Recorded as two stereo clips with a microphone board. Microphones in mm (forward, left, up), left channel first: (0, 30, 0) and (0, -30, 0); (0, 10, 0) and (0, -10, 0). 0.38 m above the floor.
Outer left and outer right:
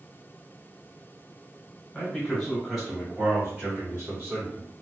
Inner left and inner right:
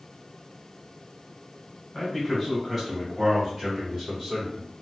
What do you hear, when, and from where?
1.9 s a man speaking: 15° left (ahead or behind), 1.5 m; by 4.7 s 40° right (ahead or behind), 2 m